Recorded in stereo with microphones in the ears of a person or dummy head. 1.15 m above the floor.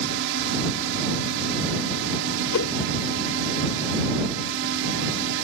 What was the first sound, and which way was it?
A drone, 65° right (ahead or behind).